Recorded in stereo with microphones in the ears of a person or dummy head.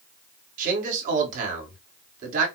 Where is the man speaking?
45° right (ahead or behind), 1.6 m.